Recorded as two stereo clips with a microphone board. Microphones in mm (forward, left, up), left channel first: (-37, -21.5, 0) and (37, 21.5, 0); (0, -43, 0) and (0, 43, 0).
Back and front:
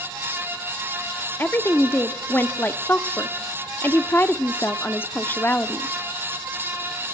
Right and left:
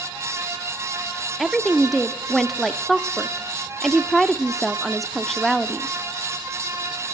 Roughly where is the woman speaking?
Behind.